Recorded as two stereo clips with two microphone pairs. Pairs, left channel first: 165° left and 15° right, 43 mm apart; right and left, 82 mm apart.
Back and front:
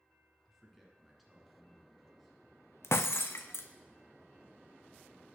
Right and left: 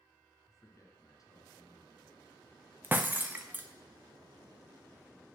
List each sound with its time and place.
0.5 s a man speaking: 100° right, 1.4 m; by 2.4 s 110° right, 2 m
2.8 s breaking glass: 160° left, 0.5 m